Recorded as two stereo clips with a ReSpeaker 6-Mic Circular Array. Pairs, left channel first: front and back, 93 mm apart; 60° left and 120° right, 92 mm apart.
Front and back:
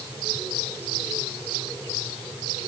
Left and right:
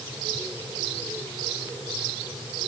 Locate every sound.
Only background noise.